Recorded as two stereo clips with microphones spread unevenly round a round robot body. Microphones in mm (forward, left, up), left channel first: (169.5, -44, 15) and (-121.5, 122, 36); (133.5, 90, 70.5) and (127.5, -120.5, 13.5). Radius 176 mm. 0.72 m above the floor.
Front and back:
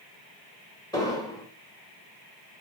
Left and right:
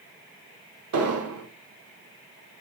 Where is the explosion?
110° right, 0.7 m.